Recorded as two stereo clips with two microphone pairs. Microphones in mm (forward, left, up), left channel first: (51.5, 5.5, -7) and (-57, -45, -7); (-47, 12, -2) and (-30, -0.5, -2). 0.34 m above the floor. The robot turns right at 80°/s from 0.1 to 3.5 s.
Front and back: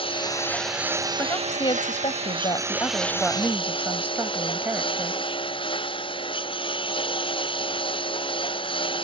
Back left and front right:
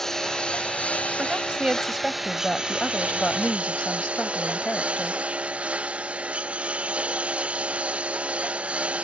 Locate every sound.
0.0 s a lawn mower: 65° left; by 9.1 s 20° right
1.2 s a woman speaking: 45° right; by 5.2 s 140° left